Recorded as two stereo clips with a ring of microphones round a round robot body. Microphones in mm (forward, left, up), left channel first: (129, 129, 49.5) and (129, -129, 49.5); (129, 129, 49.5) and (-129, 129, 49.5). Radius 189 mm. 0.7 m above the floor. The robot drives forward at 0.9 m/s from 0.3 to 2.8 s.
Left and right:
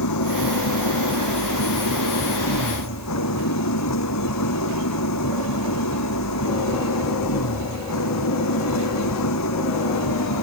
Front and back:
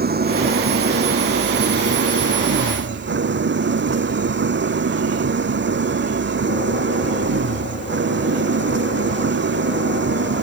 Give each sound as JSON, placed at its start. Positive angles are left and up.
{"t": 0.0, "sound": "an engine running", "azimuth_deg": 125}